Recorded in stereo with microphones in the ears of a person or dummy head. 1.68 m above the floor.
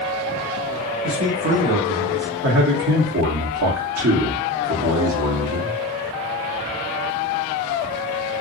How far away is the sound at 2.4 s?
About 1.3 m.